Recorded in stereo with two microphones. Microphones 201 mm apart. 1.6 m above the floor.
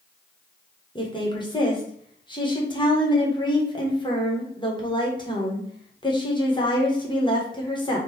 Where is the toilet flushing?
No toilet flushing in this recording.